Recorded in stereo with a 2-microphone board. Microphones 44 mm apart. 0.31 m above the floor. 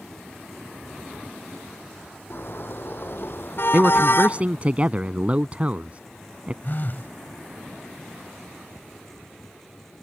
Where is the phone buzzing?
50° left (ahead or behind).